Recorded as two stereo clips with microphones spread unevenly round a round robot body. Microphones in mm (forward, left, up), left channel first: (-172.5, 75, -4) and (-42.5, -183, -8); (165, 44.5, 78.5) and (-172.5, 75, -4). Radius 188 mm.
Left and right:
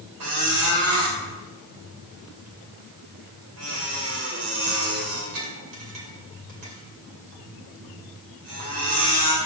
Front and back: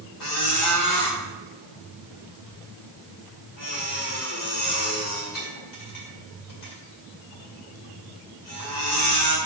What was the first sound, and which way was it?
A squeak, 50° right.